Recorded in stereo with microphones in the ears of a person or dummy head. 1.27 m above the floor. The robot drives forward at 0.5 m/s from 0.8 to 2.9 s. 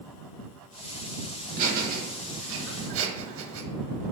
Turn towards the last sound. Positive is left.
turn(degrees=-70)  # may be behind; listen again after turning